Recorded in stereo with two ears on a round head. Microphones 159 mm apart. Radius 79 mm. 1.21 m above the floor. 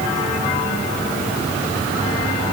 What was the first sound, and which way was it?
Only background noise.